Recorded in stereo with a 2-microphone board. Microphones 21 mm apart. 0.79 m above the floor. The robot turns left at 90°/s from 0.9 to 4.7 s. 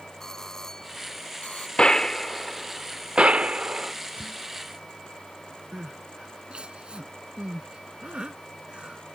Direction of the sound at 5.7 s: 60° right (ahead or behind).